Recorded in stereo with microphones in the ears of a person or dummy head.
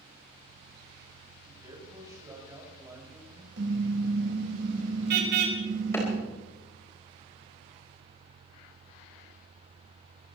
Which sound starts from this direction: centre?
A clap, at 5.9 s.